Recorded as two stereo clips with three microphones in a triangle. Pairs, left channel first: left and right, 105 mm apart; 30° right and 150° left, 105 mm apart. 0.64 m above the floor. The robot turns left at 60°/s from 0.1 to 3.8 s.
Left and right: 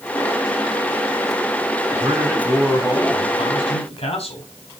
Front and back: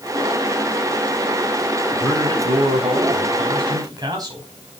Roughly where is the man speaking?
Behind right.